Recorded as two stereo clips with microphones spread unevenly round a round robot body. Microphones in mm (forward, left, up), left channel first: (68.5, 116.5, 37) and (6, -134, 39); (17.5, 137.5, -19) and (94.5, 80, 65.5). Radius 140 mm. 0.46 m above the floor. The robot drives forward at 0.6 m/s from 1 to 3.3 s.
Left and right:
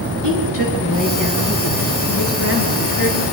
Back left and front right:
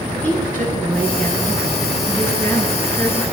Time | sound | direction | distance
0.2 | a woman speaking | 80° left | 9 m